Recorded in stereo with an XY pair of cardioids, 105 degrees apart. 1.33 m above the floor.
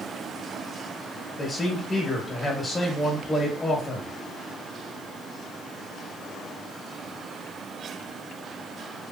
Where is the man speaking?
15° left, 1.5 m.